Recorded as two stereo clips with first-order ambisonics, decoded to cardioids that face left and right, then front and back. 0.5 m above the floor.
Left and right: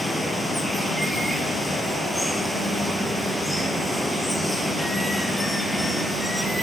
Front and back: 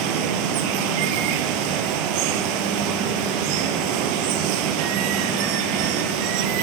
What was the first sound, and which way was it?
Running water, straight behind.